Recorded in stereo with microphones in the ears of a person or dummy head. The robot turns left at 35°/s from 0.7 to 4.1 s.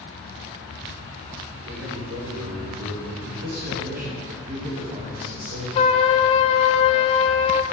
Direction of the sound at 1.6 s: 50° right.